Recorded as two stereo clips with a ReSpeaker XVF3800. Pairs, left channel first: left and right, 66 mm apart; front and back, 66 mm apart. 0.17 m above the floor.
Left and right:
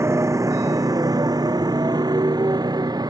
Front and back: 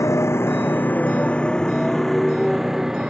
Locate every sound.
0.0 s a motorcycle: 45° right; by 3.1 s 100° right